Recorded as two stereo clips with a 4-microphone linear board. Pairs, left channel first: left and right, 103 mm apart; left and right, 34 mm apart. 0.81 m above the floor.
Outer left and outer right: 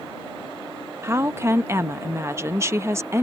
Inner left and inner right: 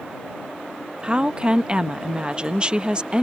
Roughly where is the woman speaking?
Right.